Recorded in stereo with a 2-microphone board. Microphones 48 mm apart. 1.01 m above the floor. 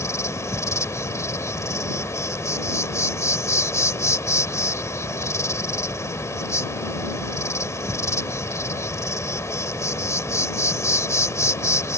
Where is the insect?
80° left.